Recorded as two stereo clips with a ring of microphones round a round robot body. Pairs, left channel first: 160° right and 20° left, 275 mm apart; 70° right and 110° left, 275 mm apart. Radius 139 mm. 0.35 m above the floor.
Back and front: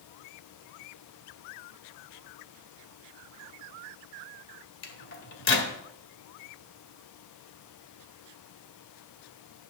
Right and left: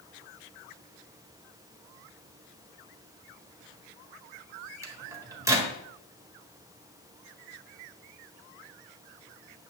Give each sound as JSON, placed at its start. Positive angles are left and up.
{"t": 4.8, "sound": "a microwave", "azimuth_deg": -175, "distance_m": 1.5}